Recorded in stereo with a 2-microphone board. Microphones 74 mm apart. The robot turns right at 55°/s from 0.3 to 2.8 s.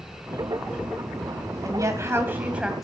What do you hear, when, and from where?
1.6 s a woman speaking: 70° right, 2 m; by 2.8 s 5° right, 2 m